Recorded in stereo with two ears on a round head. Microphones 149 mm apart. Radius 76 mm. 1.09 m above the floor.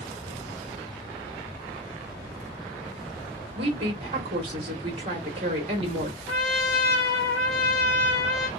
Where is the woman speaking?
35° right (ahead or behind), 1.1 m.